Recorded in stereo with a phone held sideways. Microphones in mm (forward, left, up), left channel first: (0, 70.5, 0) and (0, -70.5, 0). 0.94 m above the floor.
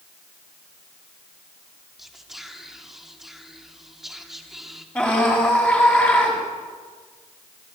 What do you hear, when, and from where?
2.0 s whispering: centre (ahead or behind), 2.5 m
5.0 s a scream: 10° left (ahead or behind), 7 m